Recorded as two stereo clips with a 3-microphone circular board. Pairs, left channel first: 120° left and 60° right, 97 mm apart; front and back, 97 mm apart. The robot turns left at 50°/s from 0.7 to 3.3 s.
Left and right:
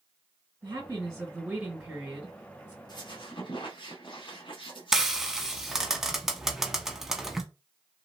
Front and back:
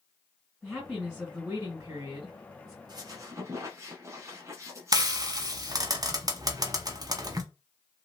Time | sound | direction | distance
0.6 | a woman speaking | 90° right | 2 m
2.9 | a squeak | 150° left | 0.9 m
4.9 | frying | 145° right | 0.5 m